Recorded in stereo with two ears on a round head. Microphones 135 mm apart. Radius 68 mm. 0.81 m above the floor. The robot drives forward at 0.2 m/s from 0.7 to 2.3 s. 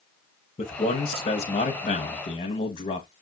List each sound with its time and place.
0.6 s a man speaking: 35° left (ahead or behind), 0.8 m